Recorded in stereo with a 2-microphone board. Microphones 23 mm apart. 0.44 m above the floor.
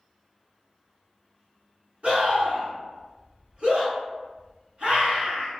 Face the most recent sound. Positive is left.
turn(degrees=-45)  # may be behind; listen again after turning